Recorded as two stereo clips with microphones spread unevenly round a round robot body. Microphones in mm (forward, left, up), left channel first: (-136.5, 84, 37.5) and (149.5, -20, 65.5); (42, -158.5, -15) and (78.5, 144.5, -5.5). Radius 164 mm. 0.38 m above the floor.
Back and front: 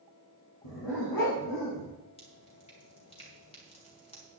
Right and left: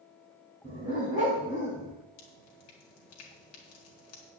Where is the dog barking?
160° left, 6.5 m; by 1.9 s 165° left, 7 m.